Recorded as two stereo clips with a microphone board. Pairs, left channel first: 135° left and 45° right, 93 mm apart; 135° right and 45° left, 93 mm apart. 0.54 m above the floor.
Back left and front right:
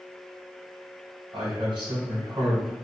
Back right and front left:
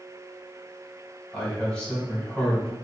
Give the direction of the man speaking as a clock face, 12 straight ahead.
2 o'clock.